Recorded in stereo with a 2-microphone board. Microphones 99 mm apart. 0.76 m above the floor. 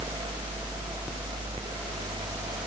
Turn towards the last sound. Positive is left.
No sound to turn to.